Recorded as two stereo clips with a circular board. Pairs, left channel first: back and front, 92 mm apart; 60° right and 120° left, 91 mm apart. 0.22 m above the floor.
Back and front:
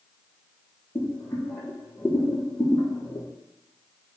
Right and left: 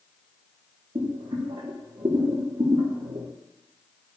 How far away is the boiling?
About 3 m.